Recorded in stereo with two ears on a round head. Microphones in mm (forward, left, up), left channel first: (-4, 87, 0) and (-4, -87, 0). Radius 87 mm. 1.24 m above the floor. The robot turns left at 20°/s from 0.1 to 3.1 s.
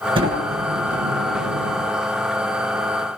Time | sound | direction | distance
0.1 | a sliding door | 25° right | 7.5 m